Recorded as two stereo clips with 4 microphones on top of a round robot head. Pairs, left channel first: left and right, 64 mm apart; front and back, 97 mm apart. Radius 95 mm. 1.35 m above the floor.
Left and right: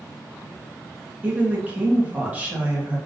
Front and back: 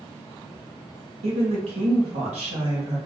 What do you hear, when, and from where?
1.2 s a woman speaking: 155° right, 1.5 m